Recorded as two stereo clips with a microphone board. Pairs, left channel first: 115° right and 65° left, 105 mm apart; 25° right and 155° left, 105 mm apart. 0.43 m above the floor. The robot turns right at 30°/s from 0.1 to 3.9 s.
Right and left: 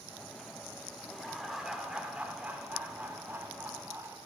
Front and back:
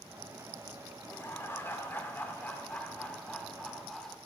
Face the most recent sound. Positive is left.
turn(degrees=60)